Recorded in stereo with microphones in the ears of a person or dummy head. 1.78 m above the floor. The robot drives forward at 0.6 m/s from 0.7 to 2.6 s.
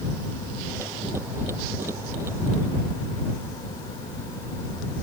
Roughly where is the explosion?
No explosion in this recording.